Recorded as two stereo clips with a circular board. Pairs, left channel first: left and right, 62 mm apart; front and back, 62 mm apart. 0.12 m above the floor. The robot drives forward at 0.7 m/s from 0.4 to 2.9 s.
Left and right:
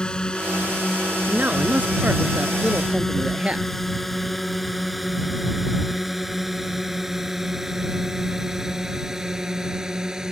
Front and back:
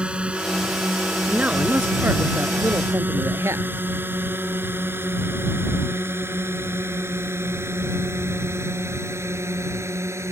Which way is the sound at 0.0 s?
140° left.